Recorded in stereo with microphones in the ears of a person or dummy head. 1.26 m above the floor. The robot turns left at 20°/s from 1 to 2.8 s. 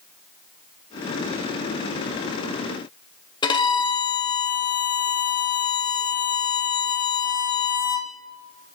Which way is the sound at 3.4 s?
20° left (ahead or behind).